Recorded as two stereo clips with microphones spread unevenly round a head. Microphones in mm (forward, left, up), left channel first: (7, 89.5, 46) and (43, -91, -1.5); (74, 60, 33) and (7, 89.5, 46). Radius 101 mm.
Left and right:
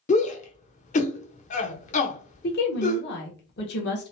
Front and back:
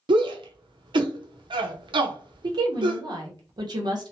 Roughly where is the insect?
No insect in this recording.